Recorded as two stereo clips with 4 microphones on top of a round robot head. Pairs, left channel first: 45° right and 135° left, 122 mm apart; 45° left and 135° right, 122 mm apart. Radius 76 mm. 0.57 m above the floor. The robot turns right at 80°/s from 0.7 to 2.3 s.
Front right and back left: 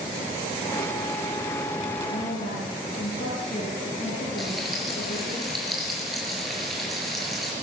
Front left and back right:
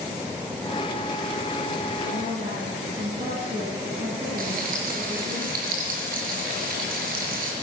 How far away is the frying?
About 4.5 m.